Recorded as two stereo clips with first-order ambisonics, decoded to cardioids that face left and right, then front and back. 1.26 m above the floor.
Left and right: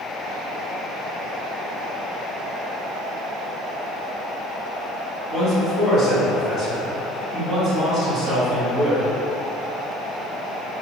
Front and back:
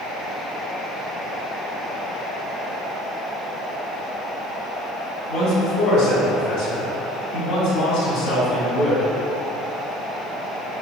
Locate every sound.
5.3 s a man speaking: 35° right, 1.4 m